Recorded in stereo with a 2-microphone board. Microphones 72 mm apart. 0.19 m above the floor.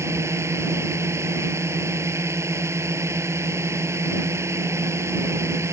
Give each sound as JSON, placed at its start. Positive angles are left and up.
{"t": 0.0, "sound": "a drone", "side_deg": -40}